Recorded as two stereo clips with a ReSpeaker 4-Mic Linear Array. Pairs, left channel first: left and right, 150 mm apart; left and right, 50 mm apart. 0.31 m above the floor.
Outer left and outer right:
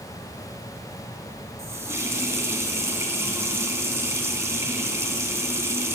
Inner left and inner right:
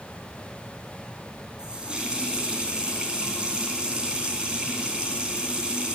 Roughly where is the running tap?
Centre.